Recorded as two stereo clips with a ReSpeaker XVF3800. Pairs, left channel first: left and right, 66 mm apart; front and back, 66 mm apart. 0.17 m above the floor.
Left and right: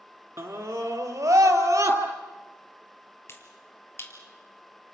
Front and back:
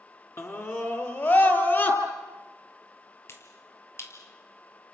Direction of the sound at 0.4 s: 45° right.